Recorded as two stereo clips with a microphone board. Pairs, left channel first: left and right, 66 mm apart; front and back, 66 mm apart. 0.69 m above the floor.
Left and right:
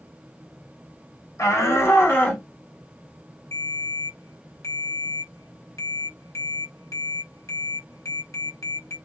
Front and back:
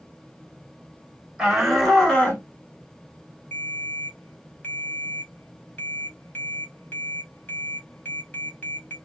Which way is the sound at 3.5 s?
60° left.